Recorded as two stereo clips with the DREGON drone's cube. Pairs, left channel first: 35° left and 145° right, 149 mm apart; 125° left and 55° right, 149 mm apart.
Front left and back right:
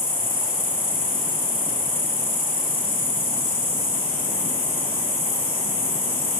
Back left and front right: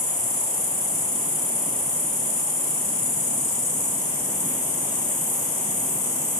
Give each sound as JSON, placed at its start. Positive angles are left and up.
{"t": 0.0, "sound": "an insect", "azimuth_deg": 85, "distance_m": 1.3}